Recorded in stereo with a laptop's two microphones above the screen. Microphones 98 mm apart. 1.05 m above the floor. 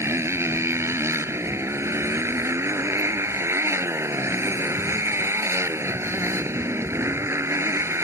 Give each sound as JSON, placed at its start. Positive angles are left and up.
{"t": 0.0, "sound": "a motorcycle", "side_deg": -25}